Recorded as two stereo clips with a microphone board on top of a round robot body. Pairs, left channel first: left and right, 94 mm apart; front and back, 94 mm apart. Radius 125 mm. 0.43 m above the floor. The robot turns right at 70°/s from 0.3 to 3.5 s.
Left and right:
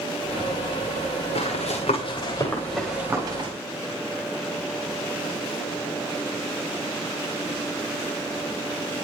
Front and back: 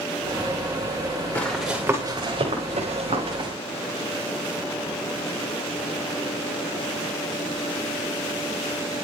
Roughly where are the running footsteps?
Left.